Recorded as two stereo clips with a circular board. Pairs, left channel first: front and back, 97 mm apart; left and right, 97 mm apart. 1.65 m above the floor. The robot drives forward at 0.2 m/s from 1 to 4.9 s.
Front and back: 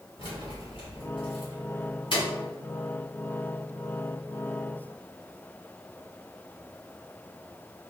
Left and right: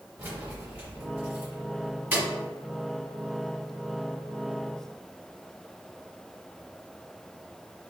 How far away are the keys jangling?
About 1.6 m.